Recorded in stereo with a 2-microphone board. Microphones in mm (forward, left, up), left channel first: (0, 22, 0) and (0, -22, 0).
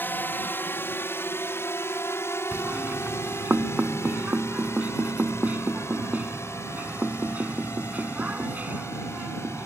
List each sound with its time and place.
0.0 s a drone: 50° left (ahead or behind); by 9.7 s 85° left
2.5 s knocking: 35° right (ahead or behind)